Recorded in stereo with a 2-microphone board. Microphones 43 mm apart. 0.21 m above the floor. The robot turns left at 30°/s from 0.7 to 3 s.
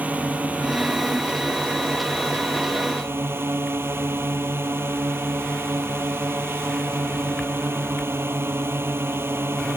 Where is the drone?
40° right; by 9.8 s 110° right.